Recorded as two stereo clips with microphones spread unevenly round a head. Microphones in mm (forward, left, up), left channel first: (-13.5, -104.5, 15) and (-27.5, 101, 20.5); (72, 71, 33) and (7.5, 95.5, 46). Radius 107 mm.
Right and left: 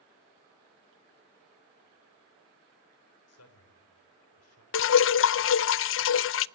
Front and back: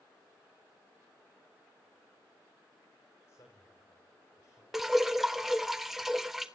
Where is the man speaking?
85° right, 5 m.